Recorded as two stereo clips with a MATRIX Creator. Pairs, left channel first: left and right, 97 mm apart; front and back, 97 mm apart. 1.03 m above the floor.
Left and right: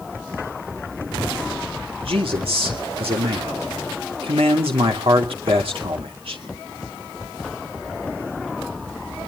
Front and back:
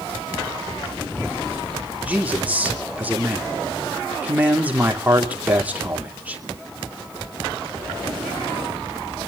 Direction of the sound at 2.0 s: 105° right.